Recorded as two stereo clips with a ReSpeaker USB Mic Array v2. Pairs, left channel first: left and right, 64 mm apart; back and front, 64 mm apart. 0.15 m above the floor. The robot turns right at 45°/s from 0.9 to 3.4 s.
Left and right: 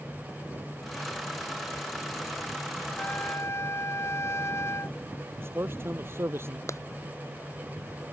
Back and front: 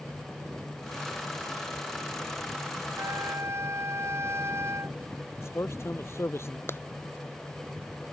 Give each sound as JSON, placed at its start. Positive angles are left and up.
{"t": 3.0, "sound": "a trumpet", "azimuth_deg": 30}
{"t": 5.4, "sound": "a man speaking", "azimuth_deg": -135}
{"t": 6.7, "sound": "a clap", "azimuth_deg": 130}